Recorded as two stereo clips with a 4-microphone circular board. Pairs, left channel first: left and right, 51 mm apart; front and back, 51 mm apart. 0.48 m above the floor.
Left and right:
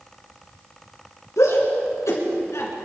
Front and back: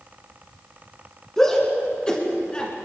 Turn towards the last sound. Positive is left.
turn(degrees=70)